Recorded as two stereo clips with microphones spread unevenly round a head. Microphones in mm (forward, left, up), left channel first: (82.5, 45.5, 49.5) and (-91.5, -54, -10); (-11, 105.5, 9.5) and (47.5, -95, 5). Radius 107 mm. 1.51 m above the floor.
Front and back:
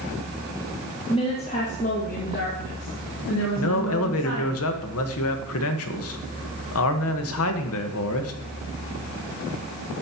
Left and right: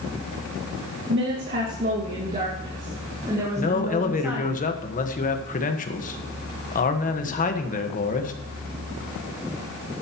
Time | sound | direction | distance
1.1 | a woman speaking | 40° right | 1.9 m
3.6 | a man speaking | 55° left | 1.5 m